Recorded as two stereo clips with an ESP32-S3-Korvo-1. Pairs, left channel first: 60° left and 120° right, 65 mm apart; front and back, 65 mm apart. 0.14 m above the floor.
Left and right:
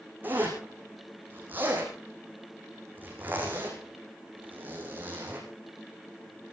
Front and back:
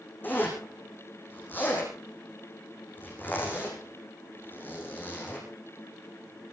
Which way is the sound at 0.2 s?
60° right.